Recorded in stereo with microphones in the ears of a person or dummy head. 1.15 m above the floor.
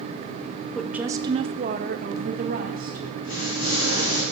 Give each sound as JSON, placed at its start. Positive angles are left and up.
{"t": 0.8, "sound": "a woman speaking", "side_deg": 5, "distance_m": 0.5}
{"t": 3.2, "sound": "an explosion", "side_deg": 60, "distance_m": 3.0}